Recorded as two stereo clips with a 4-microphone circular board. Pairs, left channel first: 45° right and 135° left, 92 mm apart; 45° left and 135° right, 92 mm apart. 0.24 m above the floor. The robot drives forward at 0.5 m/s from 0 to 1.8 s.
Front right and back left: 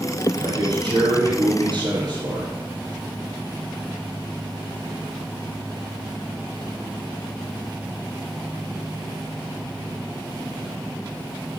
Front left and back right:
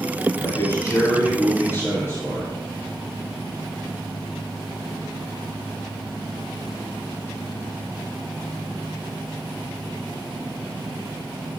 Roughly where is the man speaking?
Left.